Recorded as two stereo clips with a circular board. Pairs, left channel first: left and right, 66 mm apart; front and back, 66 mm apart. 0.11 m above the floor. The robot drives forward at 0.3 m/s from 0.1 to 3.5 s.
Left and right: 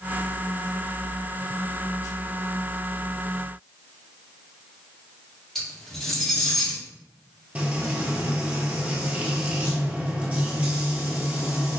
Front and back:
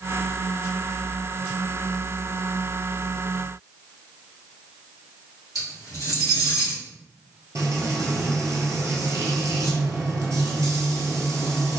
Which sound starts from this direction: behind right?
Frying, at 7.5 s.